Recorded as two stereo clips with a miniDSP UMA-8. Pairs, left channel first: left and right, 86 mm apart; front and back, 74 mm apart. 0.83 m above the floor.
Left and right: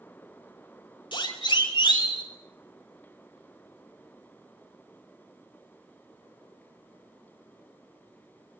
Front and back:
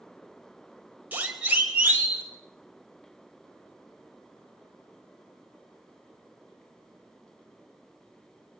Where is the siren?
110° left, 5 m.